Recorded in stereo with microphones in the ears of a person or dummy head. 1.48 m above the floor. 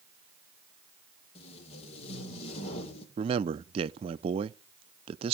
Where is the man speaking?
35° right (ahead or behind), 0.6 m.